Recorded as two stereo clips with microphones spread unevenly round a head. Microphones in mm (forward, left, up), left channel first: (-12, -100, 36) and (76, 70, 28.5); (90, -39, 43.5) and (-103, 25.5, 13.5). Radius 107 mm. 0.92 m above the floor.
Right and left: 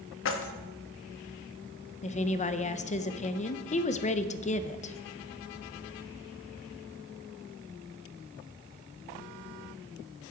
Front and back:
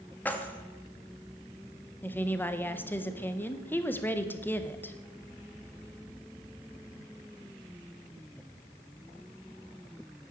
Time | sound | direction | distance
0.2 | keys jangling | 100° right | 0.8 m
2.0 | a woman speaking | 105° right | 0.6 m